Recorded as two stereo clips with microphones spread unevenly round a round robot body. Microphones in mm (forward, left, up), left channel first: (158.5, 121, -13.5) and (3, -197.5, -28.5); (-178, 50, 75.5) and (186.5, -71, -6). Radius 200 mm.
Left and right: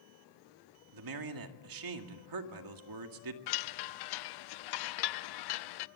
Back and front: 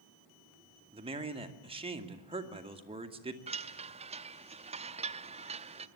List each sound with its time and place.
0.9 s a man speaking: 90° right, 2 m
3.5 s a chime: 60° left, 0.7 m